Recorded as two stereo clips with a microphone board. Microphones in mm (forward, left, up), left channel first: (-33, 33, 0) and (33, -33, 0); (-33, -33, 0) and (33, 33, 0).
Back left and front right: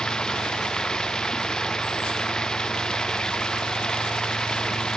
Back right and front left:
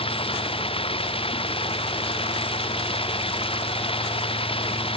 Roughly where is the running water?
Behind right.